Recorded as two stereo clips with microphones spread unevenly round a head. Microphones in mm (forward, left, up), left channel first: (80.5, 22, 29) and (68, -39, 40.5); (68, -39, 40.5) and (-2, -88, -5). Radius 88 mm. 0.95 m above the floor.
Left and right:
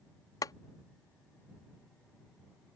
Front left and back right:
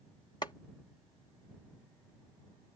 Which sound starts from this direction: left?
Boiling, at 0.4 s.